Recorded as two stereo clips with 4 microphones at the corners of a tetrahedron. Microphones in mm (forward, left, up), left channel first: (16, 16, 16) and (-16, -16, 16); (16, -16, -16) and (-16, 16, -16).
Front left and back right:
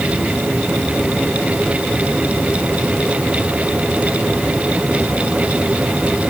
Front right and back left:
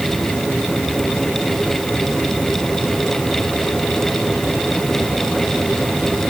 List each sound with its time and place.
Only background noise.